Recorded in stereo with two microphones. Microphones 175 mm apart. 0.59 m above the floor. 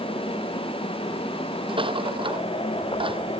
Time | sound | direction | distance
1.7 | a rattle | 30° right (ahead or behind) | ?